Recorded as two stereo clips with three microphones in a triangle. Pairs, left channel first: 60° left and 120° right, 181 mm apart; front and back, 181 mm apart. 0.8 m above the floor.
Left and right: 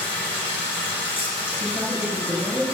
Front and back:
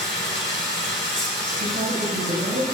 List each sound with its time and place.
0.0 s running water: straight ahead, 3.5 m
1.6 s a woman speaking: 160° left, 4 m